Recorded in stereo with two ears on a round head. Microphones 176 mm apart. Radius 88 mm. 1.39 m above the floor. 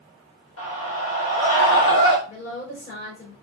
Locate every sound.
0.6 s a scream: 75° left (ahead or behind), 1.6 m; by 2.2 s 65° left (ahead or behind), 0.9 m
2.3 s a woman speaking: 50° left (ahead or behind), 5.5 m